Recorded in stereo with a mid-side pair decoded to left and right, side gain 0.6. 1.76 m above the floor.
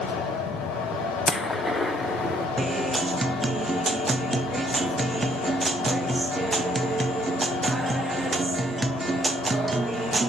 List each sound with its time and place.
0.0 s a fan: 70° left, 8.5 m
1.3 s a gunshot: 15° left, 1.6 m
2.6 s a guitar: 15° right, 0.9 m